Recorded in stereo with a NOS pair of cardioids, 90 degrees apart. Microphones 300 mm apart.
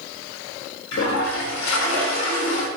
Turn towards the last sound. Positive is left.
turn(degrees=60)